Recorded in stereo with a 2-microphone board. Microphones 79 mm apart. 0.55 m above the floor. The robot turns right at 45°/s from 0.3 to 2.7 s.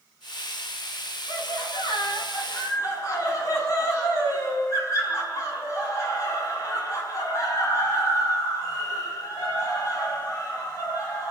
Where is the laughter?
75° left, 5.5 m; by 11.3 s 140° left, 5.5 m.